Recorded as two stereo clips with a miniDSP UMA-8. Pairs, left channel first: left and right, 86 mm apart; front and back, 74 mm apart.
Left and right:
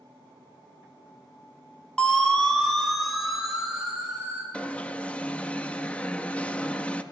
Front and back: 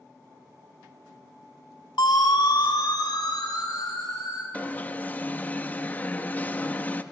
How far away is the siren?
About 2 m.